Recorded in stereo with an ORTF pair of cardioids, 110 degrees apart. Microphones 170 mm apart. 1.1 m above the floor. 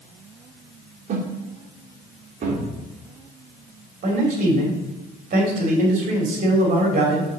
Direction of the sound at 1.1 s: 50° right.